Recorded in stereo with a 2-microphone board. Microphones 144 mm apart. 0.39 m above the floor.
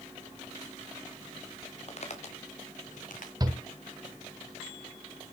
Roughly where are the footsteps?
Left.